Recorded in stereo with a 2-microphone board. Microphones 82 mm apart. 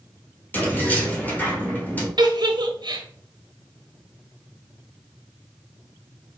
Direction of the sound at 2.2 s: 65° right (ahead or behind).